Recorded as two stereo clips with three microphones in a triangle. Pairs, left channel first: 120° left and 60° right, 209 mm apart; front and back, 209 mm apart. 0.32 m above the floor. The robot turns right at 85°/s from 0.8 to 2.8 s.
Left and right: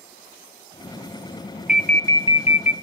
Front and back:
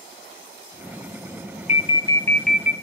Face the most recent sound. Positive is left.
turn(degrees=115)